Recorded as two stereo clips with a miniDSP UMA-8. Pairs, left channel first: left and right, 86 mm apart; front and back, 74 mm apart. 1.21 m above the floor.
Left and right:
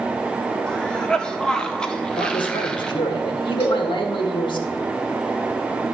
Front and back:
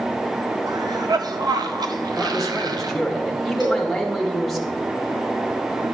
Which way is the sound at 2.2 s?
90° left.